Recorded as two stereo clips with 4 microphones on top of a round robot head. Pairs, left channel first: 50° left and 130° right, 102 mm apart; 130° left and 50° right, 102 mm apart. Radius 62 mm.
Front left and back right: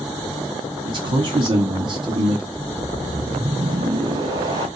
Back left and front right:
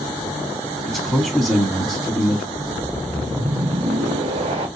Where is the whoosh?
80° right, 1.5 m.